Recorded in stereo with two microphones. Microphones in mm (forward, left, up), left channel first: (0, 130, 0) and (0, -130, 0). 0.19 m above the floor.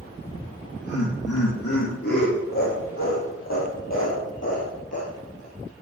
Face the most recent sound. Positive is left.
turn(degrees=70)  # may be behind; listen again after turning